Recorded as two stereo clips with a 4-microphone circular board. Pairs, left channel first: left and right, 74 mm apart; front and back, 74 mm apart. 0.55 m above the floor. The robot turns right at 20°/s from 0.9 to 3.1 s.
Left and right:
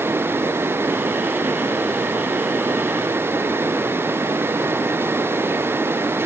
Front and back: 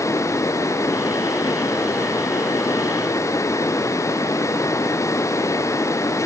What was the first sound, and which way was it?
Only background noise.